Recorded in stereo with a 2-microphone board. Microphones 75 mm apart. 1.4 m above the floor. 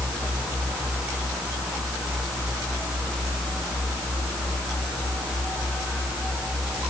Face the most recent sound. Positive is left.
No sound to turn to.